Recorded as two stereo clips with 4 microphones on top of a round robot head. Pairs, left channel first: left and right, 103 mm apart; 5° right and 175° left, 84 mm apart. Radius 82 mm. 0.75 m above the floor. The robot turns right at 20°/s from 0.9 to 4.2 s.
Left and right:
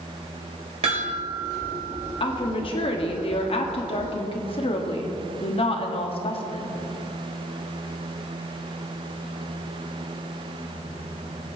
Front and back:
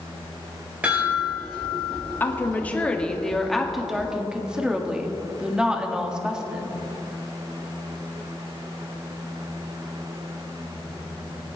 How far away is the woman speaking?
About 1.7 m.